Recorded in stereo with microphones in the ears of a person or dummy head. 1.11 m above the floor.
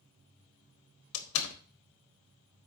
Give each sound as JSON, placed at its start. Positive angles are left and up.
{"t": 1.1, "sound": "a door slam", "side_deg": 75, "distance_m": 1.3}